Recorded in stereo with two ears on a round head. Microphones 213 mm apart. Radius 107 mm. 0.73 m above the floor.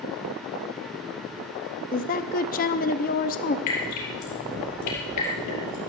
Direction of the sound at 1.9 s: 35° left (ahead or behind).